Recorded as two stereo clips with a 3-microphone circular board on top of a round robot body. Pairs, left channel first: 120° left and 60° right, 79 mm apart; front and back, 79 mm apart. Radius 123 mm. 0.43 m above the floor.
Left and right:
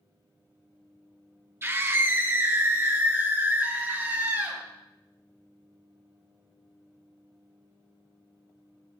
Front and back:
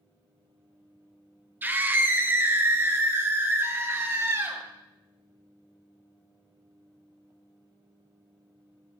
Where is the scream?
115° right, 2.5 m; by 4.6 s 125° right, 5 m.